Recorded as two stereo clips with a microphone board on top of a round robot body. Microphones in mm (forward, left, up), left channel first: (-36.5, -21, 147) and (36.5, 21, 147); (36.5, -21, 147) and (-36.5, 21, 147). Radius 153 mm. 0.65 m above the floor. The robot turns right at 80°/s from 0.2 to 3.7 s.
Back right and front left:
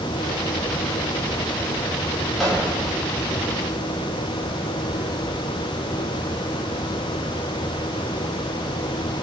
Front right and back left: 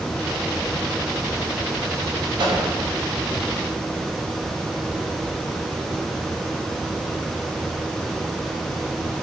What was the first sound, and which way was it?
A microwave, 120° left.